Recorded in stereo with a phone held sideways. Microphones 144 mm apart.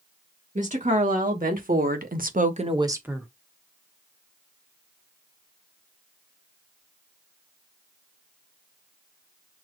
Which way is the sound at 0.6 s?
65° right (ahead or behind).